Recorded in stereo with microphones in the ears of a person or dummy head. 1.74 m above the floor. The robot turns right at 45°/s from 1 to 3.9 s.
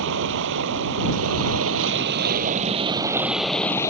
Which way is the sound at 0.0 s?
110° right.